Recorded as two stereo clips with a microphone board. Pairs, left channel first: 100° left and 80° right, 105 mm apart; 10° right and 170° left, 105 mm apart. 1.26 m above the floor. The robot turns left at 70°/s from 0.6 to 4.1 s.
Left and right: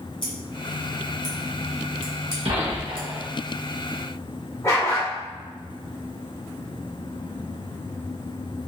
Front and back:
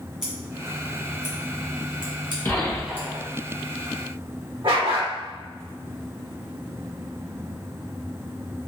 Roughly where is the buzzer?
I don't hear a buzzer.